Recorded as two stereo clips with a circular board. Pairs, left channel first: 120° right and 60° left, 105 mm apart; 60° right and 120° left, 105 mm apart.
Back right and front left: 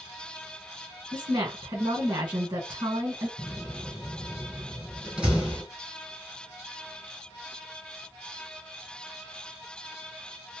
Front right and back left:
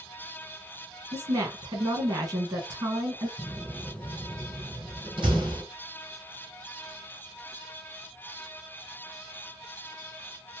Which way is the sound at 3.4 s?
140° left.